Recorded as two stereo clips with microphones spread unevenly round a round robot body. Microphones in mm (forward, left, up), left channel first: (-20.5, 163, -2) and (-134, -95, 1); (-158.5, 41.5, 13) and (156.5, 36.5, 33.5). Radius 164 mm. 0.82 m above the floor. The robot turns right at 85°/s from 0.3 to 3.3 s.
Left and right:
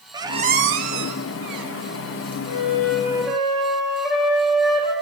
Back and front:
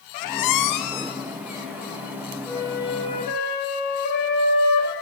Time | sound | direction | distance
0.1 | a squeak | 170° left | 0.7 m
2.5 | a flute | 85° left | 3 m